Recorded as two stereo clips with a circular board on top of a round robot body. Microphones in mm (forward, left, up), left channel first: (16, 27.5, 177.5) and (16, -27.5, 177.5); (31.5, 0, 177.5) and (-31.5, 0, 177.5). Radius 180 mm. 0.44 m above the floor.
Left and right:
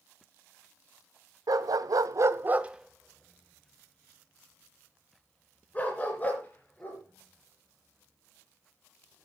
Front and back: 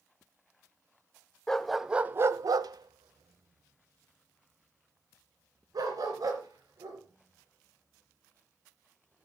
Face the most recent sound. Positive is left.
turn(degrees=150)